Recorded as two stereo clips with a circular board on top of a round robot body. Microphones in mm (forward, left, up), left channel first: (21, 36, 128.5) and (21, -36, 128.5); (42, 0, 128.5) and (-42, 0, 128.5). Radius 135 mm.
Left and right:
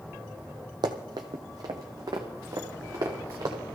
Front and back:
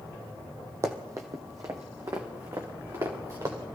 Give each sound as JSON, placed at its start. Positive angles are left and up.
{"t": 0.8, "sound": "running footsteps", "azimuth_deg": -120, "distance_m": 1.2}